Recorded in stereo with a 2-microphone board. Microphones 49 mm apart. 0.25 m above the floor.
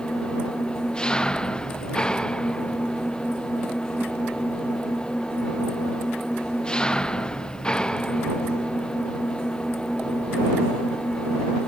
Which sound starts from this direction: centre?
An engine running, at 0.0 s.